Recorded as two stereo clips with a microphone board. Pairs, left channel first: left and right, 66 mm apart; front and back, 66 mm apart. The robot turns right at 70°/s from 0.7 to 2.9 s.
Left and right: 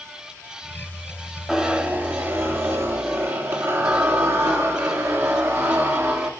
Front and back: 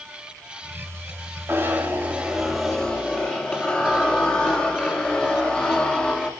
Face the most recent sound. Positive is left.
turn(degrees=-70)